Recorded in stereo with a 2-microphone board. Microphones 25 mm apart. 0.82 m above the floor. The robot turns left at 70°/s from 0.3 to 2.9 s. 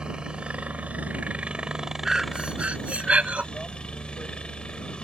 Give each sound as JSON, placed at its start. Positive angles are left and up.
{"t": 0.0, "sound": "a helicopter", "azimuth_deg": -40}
{"t": 2.0, "sound": "breathing", "azimuth_deg": -25}